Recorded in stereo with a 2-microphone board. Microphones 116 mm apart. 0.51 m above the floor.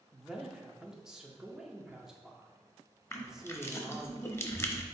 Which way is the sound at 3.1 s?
25° left (ahead or behind).